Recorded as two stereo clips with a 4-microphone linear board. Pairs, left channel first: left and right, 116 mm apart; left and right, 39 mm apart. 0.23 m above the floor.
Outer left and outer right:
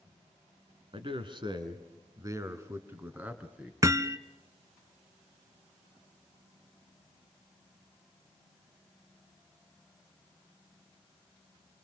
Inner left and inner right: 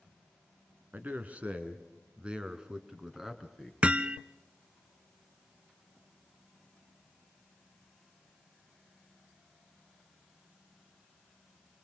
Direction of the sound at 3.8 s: 30° right (ahead or behind).